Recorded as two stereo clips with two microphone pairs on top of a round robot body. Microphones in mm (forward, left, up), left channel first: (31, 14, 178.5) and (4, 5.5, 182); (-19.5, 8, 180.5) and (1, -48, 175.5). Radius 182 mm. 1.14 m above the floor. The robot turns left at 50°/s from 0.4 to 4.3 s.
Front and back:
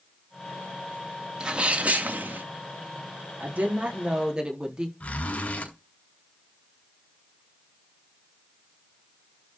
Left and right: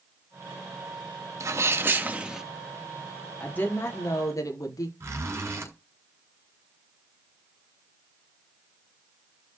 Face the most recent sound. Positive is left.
turn(degrees=-20)